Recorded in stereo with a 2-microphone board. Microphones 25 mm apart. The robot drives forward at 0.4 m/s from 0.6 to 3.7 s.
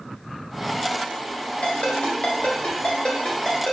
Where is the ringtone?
70° left (ahead or behind), 1.6 m; by 3.7 s 50° left (ahead or behind), 2 m.